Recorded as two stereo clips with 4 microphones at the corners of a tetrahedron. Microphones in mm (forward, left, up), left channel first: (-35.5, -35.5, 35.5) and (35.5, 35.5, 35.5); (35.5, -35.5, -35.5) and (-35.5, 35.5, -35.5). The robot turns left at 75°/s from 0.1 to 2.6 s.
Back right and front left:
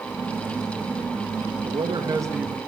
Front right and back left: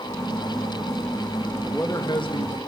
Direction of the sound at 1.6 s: 30° left.